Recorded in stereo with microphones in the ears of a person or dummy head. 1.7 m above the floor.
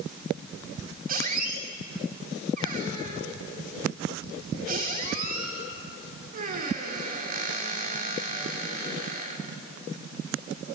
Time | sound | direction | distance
1.1 | a squeak | 45° right (ahead or behind) | 3.5 m